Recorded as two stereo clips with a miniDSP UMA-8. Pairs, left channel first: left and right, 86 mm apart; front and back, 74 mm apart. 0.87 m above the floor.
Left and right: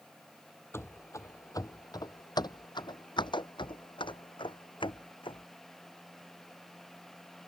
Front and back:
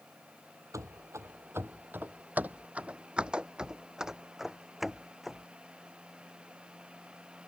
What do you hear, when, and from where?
0.7 s running footsteps: 145° left; by 5.5 s 90° left